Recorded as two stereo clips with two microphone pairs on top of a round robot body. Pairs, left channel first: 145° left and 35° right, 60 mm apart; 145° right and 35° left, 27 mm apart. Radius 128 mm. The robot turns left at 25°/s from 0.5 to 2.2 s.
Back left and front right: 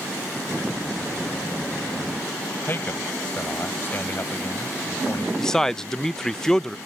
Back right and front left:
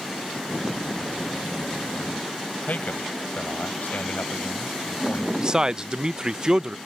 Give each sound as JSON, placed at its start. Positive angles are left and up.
{"t": 2.7, "sound": "a man speaking", "azimuth_deg": -160}
{"t": 5.4, "sound": "a man speaking", "azimuth_deg": 75}